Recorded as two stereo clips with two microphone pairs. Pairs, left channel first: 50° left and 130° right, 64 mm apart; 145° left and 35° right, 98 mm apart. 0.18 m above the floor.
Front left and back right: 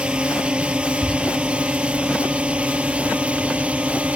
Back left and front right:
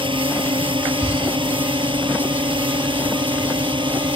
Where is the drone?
60° right.